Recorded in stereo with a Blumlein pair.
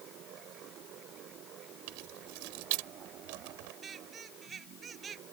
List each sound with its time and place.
0.0 s a fan: 35° right
1.9 s keys jangling: 45° right
3.8 s a squeak: 20° right